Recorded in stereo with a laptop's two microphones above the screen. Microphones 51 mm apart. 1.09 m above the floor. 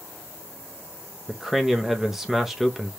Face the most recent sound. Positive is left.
turn(degrees=-5)  # may be behind; listen again after turning